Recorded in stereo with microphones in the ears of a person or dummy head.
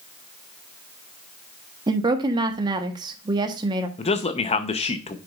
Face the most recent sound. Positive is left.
turn(degrees=25)  # may be behind; listen again after turning